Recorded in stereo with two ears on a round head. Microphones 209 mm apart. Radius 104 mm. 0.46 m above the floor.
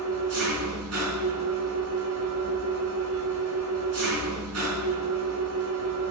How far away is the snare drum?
I don't hear a snare drum.